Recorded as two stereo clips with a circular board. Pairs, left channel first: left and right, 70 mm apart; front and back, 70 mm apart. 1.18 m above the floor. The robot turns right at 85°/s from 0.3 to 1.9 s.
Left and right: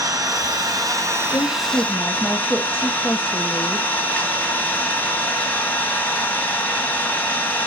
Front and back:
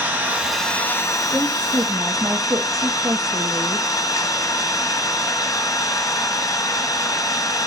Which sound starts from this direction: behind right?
An engine running, at 0.0 s.